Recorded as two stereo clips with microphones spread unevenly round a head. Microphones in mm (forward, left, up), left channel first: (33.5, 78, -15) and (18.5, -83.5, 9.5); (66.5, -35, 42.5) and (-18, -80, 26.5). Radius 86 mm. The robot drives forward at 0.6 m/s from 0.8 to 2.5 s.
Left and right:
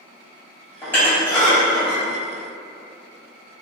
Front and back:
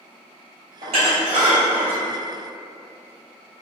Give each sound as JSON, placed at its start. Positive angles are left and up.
{"t": 0.8, "sound": "dishes clattering", "azimuth_deg": 165, "distance_m": 0.7}